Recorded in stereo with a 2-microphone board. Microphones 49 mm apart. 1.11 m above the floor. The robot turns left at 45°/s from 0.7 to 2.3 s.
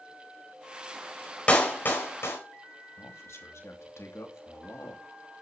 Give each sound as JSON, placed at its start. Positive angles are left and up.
{"t": 1.5, "sound": "a clap", "side_deg": 25, "distance_m": 4.5}
{"t": 3.0, "sound": "a man speaking", "side_deg": 70, "distance_m": 2.5}